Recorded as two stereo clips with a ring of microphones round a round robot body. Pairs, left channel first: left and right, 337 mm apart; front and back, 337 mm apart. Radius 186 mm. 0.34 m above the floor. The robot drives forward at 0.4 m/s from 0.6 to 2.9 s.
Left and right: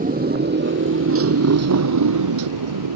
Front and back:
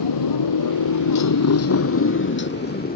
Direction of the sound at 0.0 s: 25° right.